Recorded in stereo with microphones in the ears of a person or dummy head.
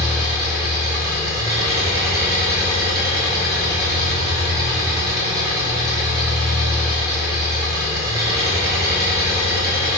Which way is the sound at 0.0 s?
25° right (ahead or behind).